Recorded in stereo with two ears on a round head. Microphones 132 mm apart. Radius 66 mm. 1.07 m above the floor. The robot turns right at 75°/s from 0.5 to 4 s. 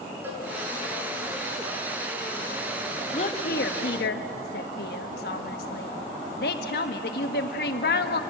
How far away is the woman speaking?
About 1.3 m.